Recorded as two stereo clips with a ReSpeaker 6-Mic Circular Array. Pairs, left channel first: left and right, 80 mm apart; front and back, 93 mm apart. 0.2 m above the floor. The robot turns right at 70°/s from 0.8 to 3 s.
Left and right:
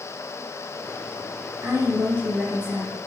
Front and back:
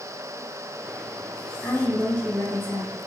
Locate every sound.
1.6 s a woman speaking: 85° right, 1.5 m; by 3.0 s 5° left, 1.5 m